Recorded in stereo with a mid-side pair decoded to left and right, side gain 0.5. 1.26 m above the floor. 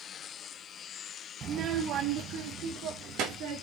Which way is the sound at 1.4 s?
45° right.